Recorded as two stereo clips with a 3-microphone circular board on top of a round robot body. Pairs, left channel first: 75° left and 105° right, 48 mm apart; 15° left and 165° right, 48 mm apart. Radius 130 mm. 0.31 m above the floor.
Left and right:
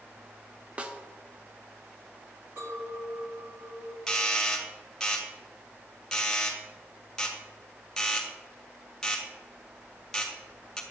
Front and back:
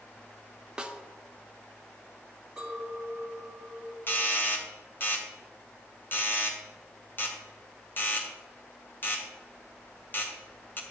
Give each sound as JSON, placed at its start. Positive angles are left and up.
{"t": 0.8, "sound": "a snare drum", "azimuth_deg": -115, "distance_m": 1.1}
{"t": 2.6, "sound": "a clink", "azimuth_deg": -90, "distance_m": 3.0}
{"t": 4.1, "sound": "a doorbell", "azimuth_deg": 0, "distance_m": 2.0}